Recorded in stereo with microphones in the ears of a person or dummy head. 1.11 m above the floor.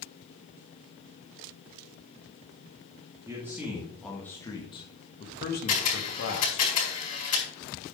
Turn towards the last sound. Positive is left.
turn(degrees=40)  # may be behind; listen again after turning